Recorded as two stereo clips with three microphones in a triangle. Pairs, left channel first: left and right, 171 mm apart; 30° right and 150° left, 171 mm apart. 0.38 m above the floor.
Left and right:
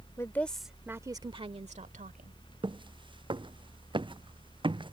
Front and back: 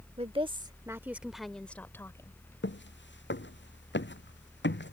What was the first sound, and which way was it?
A woman speaking, 150° left.